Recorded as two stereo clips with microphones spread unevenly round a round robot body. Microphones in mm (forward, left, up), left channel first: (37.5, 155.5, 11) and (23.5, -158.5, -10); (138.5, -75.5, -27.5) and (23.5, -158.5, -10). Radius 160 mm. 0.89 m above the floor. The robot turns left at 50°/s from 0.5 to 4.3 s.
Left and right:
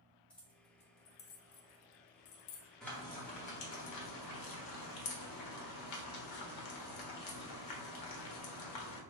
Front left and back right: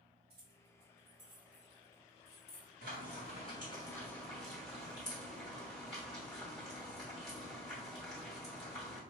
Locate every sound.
0.3 s keys jangling: 175° left, 0.8 m; by 2.7 s 65° left, 0.8 m
2.8 s frying: straight behind, 1.1 m; by 9.0 s 105° left, 1.1 m